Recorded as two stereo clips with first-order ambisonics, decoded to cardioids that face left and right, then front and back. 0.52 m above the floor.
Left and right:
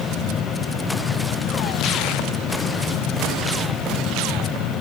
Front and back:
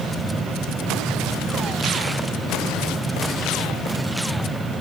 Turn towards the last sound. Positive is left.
No sound to turn to.